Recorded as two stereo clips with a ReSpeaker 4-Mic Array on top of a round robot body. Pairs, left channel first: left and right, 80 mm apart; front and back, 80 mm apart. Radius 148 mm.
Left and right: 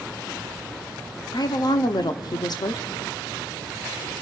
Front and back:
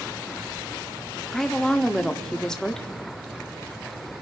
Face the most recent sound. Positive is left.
turn(degrees=85)